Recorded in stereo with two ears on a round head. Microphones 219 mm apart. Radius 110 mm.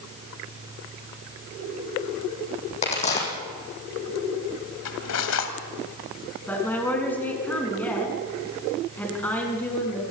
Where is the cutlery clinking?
70° left (ahead or behind), 2.5 m.